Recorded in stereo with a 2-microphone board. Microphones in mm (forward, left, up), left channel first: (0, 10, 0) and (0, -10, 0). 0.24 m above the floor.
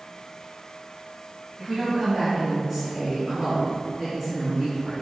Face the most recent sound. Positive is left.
turn(degrees=-10)  # may be behind; listen again after turning